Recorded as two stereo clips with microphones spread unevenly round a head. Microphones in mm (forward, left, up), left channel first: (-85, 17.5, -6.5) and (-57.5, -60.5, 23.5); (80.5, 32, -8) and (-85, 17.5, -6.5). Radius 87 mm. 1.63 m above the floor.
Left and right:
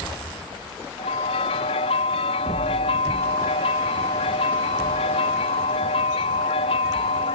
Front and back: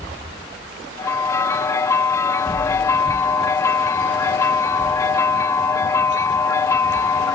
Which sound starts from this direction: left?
A bell, at 1.0 s.